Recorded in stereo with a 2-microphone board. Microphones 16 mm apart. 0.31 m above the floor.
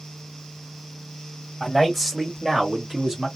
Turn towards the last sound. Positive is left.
turn(degrees=-35)  # may be behind; listen again after turning